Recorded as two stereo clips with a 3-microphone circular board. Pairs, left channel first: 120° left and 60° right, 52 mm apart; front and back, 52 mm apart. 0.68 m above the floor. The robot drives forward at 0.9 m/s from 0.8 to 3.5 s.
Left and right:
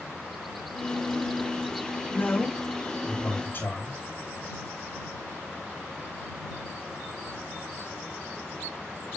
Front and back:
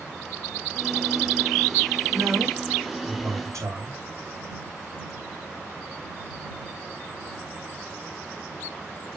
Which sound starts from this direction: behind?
A man speaking, at 2.1 s.